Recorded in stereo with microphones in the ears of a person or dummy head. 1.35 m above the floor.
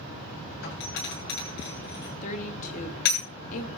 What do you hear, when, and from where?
0.6 s a doorbell: 60° left (ahead or behind), 8 m
2.2 s a woman speaking: 40° left (ahead or behind), 2.5 m